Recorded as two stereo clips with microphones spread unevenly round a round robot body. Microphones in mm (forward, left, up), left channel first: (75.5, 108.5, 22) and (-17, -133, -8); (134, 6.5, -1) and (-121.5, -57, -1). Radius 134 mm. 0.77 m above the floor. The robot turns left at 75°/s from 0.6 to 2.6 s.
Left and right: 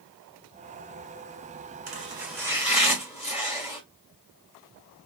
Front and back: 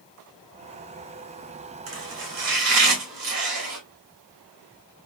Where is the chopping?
160° right, 2.5 m; by 3.8 s 145° left, 2.5 m.